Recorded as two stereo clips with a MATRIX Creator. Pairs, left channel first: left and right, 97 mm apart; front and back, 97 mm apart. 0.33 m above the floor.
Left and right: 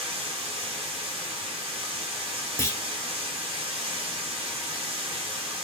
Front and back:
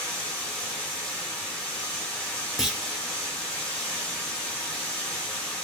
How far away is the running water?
About 2 m.